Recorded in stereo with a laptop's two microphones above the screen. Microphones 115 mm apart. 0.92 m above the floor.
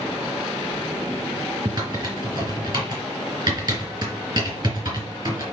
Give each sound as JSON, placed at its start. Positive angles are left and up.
{"t": 1.6, "sound": "typing on a keyboard", "side_deg": -35, "distance_m": 4.5}